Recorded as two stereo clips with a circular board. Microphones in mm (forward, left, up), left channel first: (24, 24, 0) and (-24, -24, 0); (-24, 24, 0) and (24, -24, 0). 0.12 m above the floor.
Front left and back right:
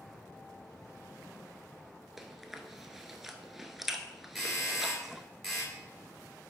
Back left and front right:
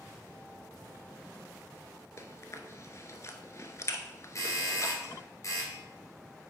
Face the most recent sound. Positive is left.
turn(degrees=130)